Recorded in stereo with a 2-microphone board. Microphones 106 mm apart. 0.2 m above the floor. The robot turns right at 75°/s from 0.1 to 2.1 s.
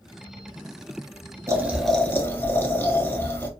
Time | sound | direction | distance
1.5 | boiling | 30° right | 0.8 m